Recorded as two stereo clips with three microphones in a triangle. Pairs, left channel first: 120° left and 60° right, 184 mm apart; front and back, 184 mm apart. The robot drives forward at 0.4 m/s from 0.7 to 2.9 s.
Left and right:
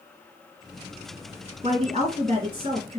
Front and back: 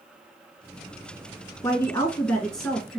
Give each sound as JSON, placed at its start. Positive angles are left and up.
{"t": 1.6, "sound": "a woman speaking", "azimuth_deg": -60, "distance_m": 1.6}